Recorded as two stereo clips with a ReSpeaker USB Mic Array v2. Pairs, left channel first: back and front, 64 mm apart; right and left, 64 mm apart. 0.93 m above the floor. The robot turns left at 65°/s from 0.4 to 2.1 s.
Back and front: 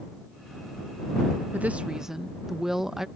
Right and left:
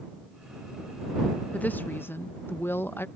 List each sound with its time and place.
1.5 s a woman speaking: 45° right; by 3.1 s 80° right